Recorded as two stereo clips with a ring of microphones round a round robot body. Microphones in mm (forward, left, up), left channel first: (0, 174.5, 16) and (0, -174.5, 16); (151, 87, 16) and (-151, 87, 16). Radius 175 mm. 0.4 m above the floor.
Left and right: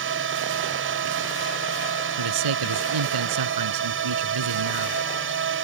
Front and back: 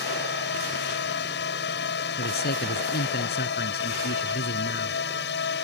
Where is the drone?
45° right.